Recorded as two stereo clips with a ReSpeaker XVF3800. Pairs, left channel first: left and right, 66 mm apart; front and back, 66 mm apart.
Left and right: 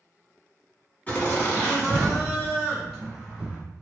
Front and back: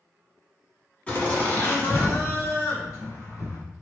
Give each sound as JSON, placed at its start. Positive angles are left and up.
{"t": 1.1, "sound": "laughter", "azimuth_deg": 50, "distance_m": 1.3}